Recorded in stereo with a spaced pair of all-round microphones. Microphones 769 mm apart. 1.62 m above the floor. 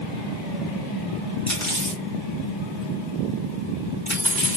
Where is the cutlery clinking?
15° left (ahead or behind), 2 m.